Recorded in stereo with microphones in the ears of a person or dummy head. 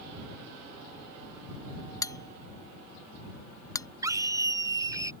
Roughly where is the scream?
Centre.